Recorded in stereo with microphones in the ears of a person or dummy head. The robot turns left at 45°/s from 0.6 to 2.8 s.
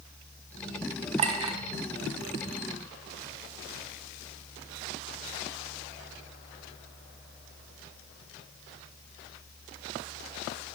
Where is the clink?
35° right (ahead or behind), 0.6 m; by 1.6 s 20° right (ahead or behind), 0.6 m.